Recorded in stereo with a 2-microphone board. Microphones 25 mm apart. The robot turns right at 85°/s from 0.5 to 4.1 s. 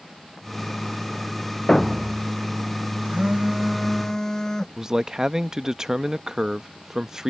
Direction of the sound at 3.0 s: 70° right.